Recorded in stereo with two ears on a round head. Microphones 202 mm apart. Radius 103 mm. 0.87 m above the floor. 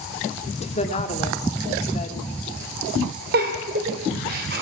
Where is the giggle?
40° right (ahead or behind), 3 m.